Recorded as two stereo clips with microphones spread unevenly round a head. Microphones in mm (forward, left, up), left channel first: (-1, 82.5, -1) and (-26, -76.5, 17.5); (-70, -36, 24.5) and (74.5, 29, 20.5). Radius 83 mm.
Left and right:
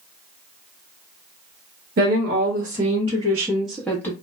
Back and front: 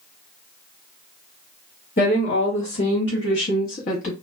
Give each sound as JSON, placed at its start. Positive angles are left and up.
{"t": 2.0, "sound": "a woman speaking", "azimuth_deg": -125, "distance_m": 1.2}